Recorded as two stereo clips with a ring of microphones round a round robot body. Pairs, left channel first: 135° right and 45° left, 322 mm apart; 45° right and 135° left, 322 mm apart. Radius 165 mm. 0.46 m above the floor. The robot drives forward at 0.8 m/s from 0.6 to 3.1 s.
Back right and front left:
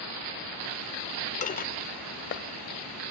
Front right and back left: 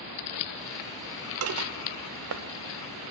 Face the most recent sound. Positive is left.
turn(degrees=175)